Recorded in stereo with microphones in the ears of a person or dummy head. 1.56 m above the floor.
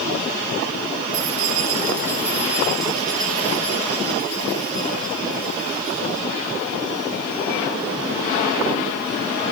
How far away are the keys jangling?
About 2 m.